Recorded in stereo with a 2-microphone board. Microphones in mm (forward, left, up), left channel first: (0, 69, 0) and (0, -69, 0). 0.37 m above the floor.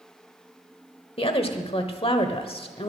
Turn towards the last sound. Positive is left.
turn(degrees=45)  # may be behind; listen again after turning